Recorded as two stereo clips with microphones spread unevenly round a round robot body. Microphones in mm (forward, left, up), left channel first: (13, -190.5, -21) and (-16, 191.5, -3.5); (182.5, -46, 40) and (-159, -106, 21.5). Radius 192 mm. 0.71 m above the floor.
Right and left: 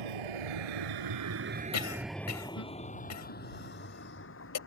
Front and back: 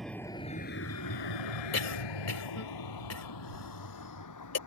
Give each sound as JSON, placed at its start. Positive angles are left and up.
{"t": 0.0, "sound": "a vehicle", "azimuth_deg": 100}
{"t": 1.7, "sound": "a cough", "azimuth_deg": -35}